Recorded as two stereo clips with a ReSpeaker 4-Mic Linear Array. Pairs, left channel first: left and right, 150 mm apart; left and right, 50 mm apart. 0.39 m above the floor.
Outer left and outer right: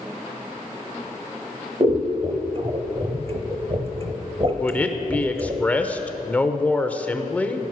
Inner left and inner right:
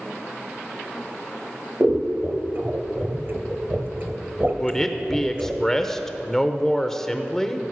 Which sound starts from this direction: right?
Scissors, at 1.8 s.